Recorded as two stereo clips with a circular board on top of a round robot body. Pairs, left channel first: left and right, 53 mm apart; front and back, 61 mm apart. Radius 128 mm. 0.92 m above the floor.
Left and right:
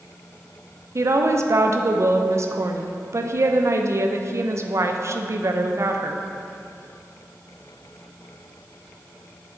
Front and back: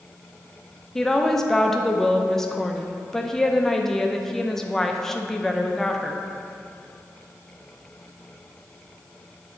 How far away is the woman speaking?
About 0.6 m.